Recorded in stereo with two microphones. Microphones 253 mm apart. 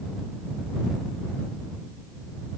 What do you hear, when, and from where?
Only background noise.